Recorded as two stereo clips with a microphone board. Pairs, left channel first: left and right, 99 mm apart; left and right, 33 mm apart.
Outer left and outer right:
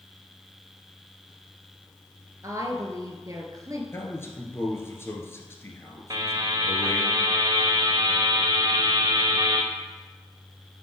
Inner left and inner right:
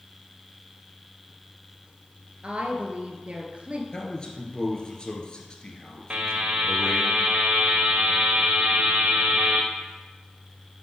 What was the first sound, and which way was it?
A woman speaking, 35° right (ahead or behind).